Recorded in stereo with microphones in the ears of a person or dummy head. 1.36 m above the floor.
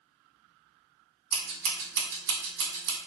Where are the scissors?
60° right (ahead or behind), 0.9 m.